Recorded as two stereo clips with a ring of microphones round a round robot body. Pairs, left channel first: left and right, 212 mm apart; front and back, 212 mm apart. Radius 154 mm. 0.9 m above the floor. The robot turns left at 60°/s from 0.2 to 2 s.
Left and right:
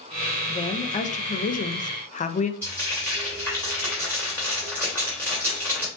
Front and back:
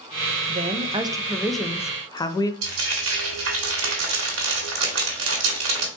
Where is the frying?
175° left, 1.8 m.